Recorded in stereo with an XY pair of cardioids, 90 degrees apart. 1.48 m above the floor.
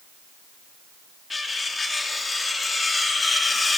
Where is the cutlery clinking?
35° left, 2 m.